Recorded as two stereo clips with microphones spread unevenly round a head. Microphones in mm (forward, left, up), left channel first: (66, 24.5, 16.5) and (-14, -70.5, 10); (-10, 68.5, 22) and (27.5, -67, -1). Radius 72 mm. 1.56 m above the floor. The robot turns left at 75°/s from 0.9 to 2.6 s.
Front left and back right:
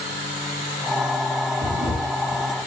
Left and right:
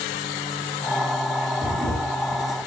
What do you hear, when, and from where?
1.6 s a camera shutter: 165° right, 5 m; by 2.7 s 125° left, 5 m